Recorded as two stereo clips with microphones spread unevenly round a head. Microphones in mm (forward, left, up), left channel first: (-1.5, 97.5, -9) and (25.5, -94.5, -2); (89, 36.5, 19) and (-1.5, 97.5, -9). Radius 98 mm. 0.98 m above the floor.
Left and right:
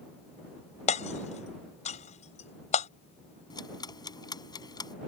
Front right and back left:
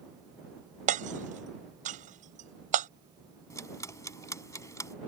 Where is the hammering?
155° left.